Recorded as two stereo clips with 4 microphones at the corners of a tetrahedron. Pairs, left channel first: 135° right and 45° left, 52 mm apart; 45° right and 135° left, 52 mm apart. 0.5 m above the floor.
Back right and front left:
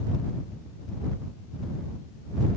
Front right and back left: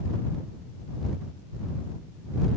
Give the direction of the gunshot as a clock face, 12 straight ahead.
No gunshot in this recording.